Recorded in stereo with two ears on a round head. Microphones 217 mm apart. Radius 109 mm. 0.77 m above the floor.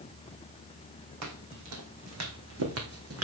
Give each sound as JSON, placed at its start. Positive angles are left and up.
{"t": 1.2, "sound": "footsteps", "side_deg": -75, "distance_m": 2.5}